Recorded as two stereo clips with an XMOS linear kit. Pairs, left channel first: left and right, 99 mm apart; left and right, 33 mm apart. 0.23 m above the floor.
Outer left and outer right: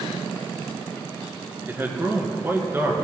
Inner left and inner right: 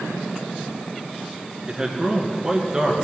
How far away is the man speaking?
About 2.5 m.